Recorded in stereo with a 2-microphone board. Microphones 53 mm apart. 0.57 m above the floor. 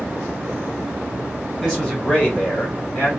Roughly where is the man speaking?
Centre.